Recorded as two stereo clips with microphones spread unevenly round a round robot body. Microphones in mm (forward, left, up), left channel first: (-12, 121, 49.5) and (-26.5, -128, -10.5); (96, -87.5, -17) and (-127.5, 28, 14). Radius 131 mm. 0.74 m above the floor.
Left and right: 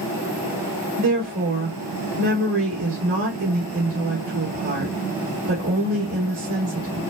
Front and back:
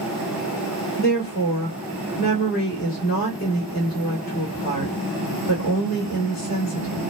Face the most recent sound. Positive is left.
turn(degrees=-75)